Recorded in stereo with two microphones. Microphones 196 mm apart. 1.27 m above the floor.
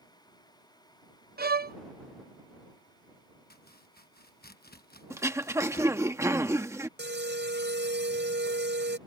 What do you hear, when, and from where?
1.4 s a violin: 55° right (ahead or behind)
3.5 s chopping: 55° left (ahead or behind)
5.1 s throat clearing: 15° right (ahead or behind)
7.0 s an alarm: 65° right (ahead or behind)